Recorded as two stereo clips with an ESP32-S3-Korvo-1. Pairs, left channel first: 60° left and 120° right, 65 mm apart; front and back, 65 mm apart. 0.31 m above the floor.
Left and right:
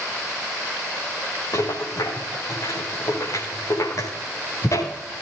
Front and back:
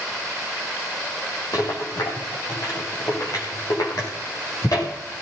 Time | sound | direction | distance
1.5 | a rattle | 25° left | 7.5 m